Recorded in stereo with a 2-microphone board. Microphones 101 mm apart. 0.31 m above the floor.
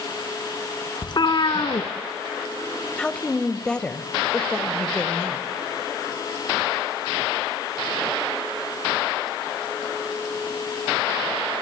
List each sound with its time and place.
1.0 s a cat meowing: 50° left (ahead or behind), 1.4 m
3.0 s a woman speaking: 10° left (ahead or behind), 1.2 m